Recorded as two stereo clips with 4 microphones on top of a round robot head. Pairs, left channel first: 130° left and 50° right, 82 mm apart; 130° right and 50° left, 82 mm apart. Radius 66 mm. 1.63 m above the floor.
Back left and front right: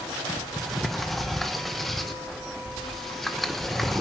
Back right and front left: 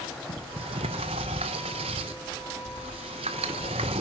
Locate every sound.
0.3 s a sliding door: 45° left, 0.9 m